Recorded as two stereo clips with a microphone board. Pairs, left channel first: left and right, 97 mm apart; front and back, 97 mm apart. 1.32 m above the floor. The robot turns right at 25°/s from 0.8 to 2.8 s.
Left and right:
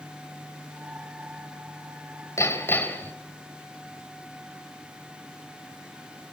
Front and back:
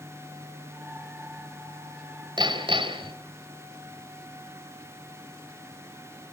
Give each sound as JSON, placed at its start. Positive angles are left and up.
{"t": 2.4, "sound": "hammering", "azimuth_deg": 145, "distance_m": 2.5}